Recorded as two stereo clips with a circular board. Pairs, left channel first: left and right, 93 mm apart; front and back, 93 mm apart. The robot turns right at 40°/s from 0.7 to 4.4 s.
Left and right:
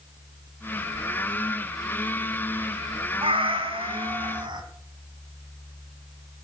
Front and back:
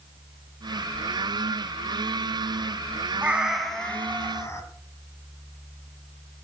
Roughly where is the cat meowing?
Right.